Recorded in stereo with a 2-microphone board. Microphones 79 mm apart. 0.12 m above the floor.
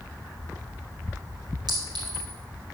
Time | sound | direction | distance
1.7 | a clink | 65° right (ahead or behind) | 2.5 m